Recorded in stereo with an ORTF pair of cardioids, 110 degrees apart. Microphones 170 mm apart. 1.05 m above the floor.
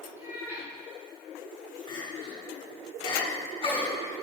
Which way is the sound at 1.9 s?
30° left.